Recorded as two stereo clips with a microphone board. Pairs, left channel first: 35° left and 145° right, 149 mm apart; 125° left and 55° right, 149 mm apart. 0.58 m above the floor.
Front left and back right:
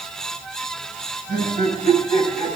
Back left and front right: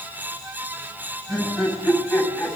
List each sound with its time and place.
1.3 s laughter: 140° right, 6.5 m